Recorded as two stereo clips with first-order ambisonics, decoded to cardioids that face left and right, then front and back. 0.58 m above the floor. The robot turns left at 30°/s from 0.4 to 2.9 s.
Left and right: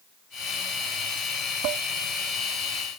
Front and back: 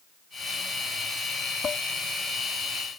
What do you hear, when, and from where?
1.6 s dishes clattering: 65° right; by 1.9 s 70° right